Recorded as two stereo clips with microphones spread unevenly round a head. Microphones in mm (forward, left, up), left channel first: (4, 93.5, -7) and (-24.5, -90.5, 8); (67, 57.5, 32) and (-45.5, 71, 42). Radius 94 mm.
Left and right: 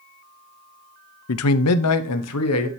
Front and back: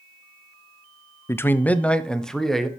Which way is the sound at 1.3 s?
65° left.